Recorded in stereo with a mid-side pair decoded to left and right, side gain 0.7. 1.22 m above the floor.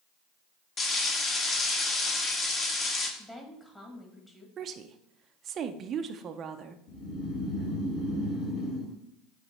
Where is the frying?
30° left, 1.5 m.